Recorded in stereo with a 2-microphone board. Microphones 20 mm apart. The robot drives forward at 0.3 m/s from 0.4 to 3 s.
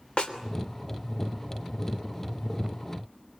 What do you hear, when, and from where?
0.2 s a snare drum: 60° left (ahead or behind), 3 m